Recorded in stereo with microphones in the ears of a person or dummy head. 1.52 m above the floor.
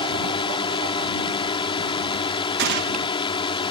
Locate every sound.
0.0 s a drone: 20° left (ahead or behind)
2.6 s a gunshot: 65° right (ahead or behind)